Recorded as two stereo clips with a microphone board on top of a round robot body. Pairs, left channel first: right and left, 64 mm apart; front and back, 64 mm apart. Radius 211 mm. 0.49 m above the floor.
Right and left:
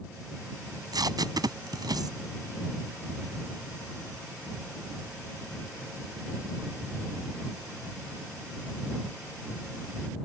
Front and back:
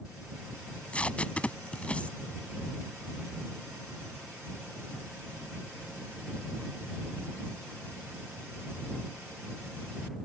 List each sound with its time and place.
0.7 s tape being pulled: 70° left